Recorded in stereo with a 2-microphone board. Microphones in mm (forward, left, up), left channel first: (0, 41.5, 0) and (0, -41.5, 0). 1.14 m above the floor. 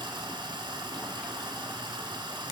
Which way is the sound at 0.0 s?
80° right.